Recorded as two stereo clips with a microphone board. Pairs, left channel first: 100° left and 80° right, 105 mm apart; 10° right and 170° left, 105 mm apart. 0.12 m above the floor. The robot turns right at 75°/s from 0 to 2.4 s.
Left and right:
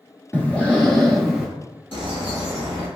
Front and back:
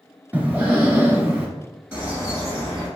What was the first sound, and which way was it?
Breathing, 125° left.